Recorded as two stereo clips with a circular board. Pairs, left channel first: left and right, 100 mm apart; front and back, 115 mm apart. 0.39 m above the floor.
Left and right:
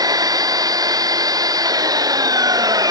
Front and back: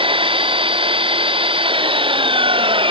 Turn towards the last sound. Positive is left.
turn(degrees=-140)